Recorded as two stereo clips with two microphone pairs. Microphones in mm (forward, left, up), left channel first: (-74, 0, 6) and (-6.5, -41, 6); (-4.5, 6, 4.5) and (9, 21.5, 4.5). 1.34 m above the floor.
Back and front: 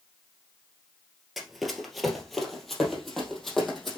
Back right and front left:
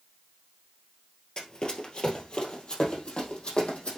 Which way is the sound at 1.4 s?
120° right.